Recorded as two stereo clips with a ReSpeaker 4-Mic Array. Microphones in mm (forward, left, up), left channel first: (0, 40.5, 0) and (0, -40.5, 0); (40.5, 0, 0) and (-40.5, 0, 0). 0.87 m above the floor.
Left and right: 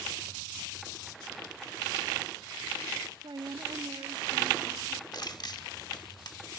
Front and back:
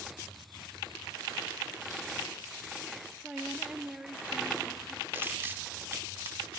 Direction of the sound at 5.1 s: 120° left.